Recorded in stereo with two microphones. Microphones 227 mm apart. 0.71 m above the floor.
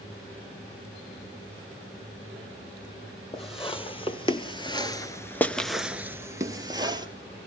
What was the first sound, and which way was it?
Footsteps, 25° left (ahead or behind).